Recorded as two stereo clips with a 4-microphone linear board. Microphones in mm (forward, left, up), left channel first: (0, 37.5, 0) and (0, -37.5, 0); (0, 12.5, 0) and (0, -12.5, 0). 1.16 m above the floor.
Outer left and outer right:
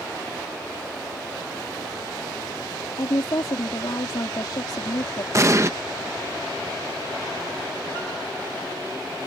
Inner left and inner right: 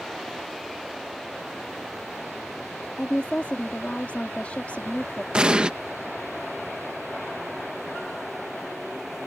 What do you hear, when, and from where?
3.0 s a woman speaking: 75° left (ahead or behind)
5.3 s an explosion: 40° right (ahead or behind)